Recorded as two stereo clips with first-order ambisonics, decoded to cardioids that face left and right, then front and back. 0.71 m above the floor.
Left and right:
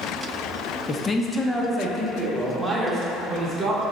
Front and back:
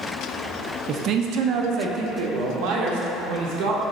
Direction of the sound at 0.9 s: 145° left.